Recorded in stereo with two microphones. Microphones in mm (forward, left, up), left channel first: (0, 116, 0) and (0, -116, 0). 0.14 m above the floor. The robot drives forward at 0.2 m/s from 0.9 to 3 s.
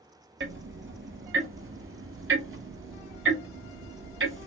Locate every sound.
0.4 s ticking: 65° right (ahead or behind), 0.6 m